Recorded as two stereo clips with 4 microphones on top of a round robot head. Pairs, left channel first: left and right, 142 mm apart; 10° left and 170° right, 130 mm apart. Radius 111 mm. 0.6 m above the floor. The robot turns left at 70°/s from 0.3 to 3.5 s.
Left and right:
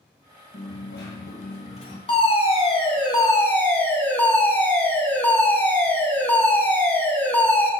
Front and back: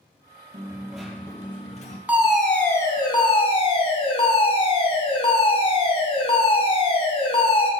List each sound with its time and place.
0.5 s a dropped coin: 130° left, 1.8 m; by 2.0 s 30° left, 1.8 m
2.1 s a fire alarm: 115° left, 2.0 m; by 7.7 s 20° left, 2.0 m